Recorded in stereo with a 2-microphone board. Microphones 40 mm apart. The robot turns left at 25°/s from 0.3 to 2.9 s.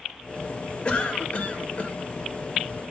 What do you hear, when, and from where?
0.8 s a cough: 30° left (ahead or behind), 1.0 m; by 2.0 s 35° left (ahead or behind), 1.0 m